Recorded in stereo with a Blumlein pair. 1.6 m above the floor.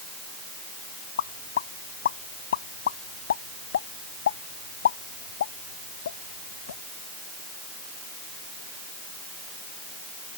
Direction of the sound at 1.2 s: 65° left.